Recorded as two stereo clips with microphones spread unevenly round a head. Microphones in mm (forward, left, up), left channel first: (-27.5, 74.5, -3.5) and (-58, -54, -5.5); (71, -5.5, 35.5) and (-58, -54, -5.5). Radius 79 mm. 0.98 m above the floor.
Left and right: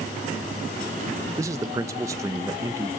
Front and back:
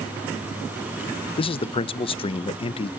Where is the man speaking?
35° right, 0.6 m.